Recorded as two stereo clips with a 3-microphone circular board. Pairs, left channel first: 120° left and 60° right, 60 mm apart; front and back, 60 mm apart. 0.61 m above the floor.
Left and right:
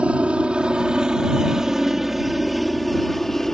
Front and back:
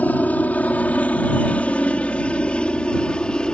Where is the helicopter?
15° right; by 3.6 s 50° left.